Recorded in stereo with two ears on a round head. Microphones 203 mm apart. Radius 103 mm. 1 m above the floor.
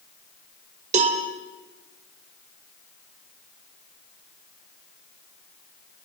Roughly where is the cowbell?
Right.